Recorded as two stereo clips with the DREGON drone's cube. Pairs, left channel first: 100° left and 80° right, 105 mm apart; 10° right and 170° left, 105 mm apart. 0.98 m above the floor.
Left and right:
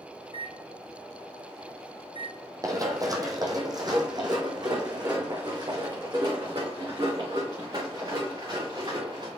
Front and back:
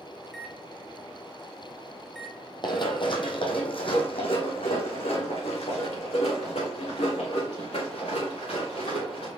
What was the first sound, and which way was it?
A microwave, 75° left.